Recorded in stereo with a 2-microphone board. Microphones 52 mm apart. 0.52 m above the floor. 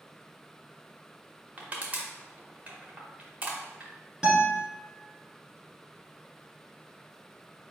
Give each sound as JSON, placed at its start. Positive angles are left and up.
{"t": 1.6, "sound": "crushing", "side_deg": -30, "distance_m": 0.8}
{"t": 4.2, "sound": "a guitar", "side_deg": -10, "distance_m": 1.4}